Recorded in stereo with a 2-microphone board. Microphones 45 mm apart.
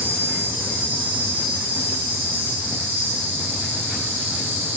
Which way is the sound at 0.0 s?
60° right (ahead or behind).